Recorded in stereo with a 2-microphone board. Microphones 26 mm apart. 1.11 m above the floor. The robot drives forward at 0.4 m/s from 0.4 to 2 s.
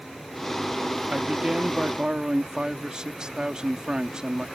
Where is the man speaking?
40° right (ahead or behind); by 4.5 s 30° right (ahead or behind).